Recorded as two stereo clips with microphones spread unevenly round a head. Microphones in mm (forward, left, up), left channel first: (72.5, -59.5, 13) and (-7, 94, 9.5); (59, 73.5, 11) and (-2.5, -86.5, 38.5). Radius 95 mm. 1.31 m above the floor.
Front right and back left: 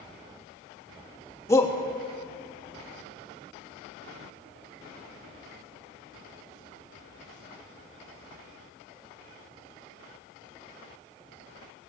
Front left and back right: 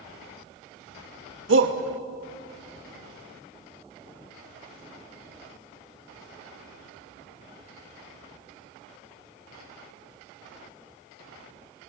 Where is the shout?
140° right, 2.5 m.